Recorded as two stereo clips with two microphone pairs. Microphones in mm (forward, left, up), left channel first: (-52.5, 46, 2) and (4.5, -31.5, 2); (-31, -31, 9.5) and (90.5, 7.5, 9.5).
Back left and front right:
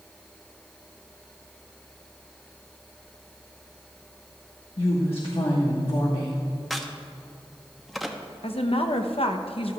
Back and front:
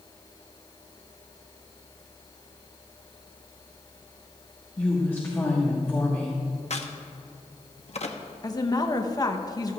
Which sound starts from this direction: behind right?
A crack, at 6.7 s.